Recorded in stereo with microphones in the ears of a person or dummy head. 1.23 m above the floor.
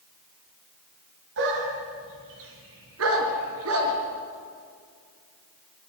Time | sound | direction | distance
1.4 | a dog barking | 65° right (ahead or behind) | 4.5 m